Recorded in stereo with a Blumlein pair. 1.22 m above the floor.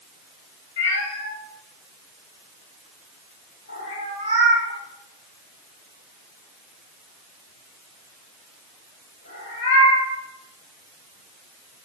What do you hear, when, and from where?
0.8 s a cat meowing: 65° left, 1.7 m